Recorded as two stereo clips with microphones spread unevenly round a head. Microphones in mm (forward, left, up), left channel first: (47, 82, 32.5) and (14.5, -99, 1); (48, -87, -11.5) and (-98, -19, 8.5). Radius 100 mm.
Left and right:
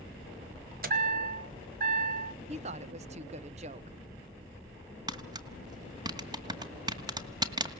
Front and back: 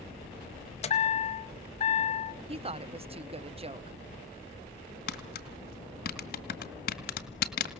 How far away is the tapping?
About 1.9 m.